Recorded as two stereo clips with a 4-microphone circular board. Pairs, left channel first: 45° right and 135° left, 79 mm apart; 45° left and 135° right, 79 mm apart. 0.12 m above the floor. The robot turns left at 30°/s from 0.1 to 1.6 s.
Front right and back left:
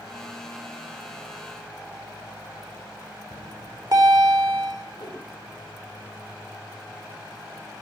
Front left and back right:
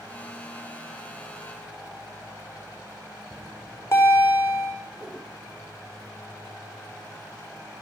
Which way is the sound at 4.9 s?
70° right.